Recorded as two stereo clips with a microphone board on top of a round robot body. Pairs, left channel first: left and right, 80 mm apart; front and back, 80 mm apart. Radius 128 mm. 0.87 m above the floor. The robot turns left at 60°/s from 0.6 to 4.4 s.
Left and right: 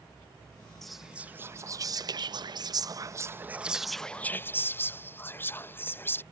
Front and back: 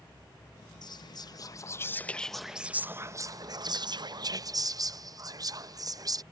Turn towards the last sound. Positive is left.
turn(degrees=150)